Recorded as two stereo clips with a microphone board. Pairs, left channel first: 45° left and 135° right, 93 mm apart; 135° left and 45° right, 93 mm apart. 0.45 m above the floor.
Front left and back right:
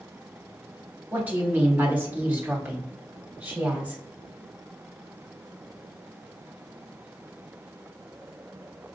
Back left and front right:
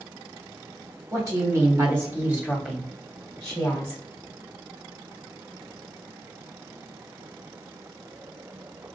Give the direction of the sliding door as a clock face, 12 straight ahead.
No sliding door in this recording.